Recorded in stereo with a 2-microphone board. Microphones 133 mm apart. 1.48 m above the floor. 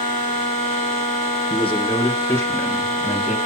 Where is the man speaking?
45° left (ahead or behind), 1.7 m; by 3.4 s 10° right (ahead or behind), 2 m.